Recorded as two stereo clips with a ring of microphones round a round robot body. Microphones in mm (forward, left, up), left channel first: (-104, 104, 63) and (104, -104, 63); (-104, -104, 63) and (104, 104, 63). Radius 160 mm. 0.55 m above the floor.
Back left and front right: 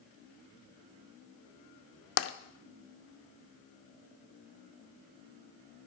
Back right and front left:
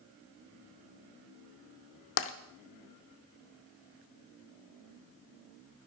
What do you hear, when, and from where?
2.2 s tapping: straight behind, 0.8 m